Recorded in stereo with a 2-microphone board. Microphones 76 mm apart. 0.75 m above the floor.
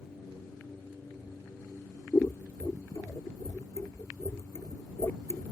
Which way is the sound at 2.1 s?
35° left (ahead or behind).